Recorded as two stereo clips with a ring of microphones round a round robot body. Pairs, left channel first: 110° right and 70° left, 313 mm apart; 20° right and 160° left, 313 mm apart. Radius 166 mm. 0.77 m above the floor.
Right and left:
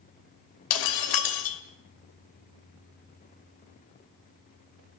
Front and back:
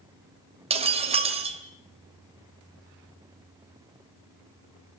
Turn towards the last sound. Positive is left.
turn(degrees=-130)